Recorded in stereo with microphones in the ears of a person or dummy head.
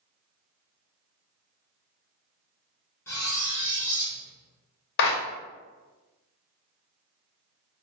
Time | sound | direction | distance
3.1 | cutlery clinking | 15° left (ahead or behind) | 0.5 m
5.0 | a clap | 50° left (ahead or behind) | 0.7 m